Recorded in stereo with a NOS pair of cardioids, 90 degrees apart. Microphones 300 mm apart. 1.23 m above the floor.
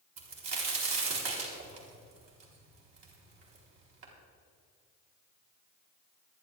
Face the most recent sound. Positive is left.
turn(degrees=-65)